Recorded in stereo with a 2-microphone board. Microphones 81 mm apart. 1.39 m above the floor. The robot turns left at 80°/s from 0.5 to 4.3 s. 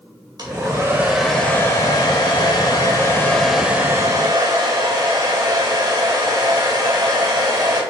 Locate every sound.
0.4 s a hair dryer: 115° right, 2.5 m; by 7.8 s 60° right, 2.5 m